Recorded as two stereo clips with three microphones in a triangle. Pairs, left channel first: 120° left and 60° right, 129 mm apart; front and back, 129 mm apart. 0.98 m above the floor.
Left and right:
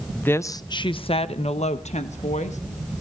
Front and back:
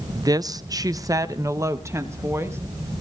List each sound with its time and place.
0.1 s a woman speaking: 175° right, 0.5 m; by 2.6 s 110° left, 1.4 m